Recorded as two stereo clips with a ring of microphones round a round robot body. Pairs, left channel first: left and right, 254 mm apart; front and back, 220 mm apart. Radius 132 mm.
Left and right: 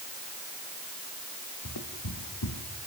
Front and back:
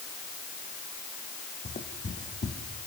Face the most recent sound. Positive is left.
turn(degrees=55)